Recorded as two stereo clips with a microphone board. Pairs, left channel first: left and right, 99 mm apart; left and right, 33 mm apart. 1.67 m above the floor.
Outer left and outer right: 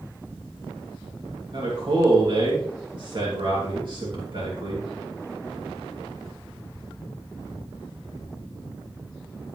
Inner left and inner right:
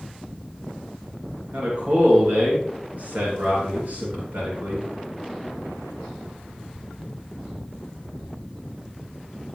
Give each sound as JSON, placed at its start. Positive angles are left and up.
{"t": 1.5, "sound": "a man speaking", "side_deg": -55, "distance_m": 3.0}